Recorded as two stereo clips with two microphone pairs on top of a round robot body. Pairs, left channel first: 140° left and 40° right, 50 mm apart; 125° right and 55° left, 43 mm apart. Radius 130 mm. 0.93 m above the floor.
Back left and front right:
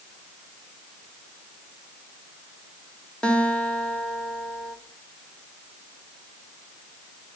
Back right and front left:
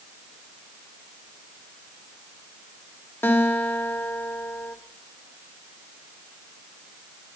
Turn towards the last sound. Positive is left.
turn(degrees=-155)